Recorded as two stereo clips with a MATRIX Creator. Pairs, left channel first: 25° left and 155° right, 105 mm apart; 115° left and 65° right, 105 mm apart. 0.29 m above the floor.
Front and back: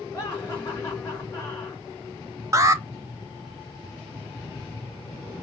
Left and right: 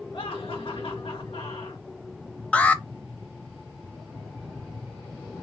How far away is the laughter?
About 3.5 m.